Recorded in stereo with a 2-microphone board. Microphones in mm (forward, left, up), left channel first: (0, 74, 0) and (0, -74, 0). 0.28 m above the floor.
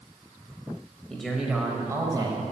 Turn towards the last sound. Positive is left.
turn(degrees=-30)  # may be behind; listen again after turning